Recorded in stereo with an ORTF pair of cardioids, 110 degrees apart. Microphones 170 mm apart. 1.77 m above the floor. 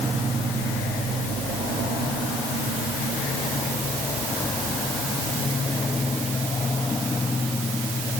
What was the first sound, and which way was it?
Only background noise.